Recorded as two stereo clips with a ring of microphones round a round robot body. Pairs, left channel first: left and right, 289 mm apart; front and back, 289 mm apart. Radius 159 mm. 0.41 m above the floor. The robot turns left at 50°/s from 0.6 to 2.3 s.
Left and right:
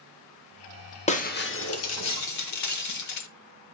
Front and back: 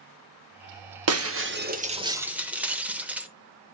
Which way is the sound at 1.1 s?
155° left.